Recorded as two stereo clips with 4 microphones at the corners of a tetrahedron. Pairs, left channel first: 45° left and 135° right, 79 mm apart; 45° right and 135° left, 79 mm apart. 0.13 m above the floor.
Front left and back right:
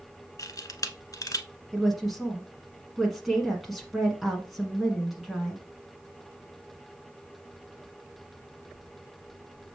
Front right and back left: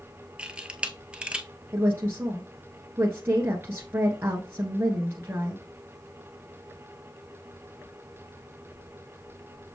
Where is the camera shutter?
65° left, 0.8 m.